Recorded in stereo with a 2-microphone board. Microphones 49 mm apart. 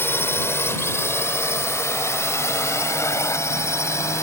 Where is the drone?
55° left (ahead or behind); by 4.2 s 75° left (ahead or behind).